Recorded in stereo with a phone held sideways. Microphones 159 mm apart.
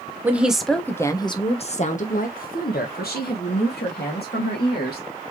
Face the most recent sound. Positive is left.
turn(degrees=90)